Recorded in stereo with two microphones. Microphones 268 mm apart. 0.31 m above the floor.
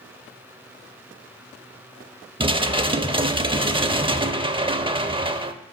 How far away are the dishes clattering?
About 0.5 m.